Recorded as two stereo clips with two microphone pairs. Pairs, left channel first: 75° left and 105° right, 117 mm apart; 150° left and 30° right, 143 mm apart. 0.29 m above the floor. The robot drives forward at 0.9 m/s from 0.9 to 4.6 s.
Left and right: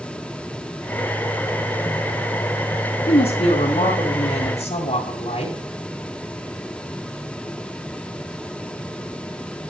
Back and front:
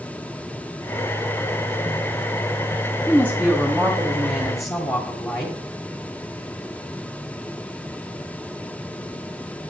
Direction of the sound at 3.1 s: 50° left.